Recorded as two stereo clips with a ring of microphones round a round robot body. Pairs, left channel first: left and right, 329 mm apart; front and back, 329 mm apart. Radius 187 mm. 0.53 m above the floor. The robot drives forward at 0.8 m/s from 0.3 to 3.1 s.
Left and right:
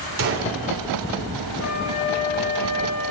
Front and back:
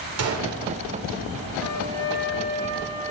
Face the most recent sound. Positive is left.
turn(degrees=70)